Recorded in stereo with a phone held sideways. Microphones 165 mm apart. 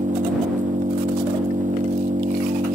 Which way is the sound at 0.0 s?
50° right (ahead or behind).